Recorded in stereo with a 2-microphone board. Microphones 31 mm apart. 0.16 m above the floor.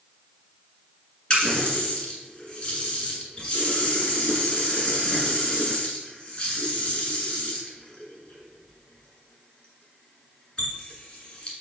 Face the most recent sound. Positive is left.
turn(degrees=30)  # may be behind; listen again after turning